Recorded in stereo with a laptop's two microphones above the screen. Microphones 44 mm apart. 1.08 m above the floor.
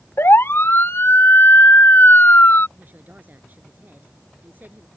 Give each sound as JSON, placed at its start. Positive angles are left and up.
{"t": 0.2, "sound": "a siren", "side_deg": 70}
{"t": 2.8, "sound": "a woman speaking", "side_deg": -45}